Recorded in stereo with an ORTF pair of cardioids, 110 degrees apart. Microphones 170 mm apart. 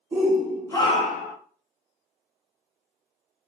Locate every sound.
0.1 s a shout: 20° right, 0.9 m; by 1.4 s 75° left, 0.7 m